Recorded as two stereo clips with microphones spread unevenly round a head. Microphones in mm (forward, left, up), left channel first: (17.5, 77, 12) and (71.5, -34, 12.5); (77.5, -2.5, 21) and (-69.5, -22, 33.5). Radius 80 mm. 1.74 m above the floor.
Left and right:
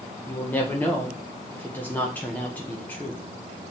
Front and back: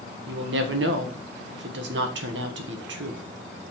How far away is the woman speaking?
About 1.5 m.